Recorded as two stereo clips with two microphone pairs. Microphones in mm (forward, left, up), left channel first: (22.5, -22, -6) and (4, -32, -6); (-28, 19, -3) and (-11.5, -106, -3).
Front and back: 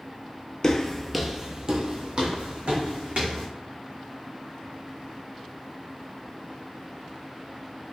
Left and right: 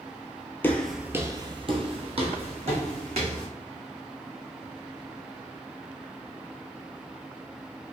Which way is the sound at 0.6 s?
35° left.